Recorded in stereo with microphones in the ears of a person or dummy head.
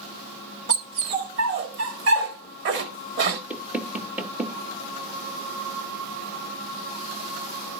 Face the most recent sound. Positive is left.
turn(degrees=-5)  # may be behind; listen again after turning